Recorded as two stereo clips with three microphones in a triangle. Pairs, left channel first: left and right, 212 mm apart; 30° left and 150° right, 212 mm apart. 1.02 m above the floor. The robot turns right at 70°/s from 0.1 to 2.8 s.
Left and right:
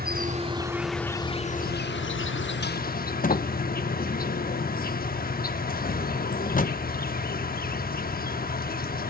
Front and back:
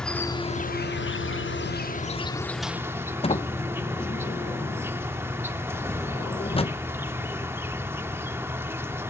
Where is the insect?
55° right, 0.9 m; by 9.1 s 135° left, 0.9 m.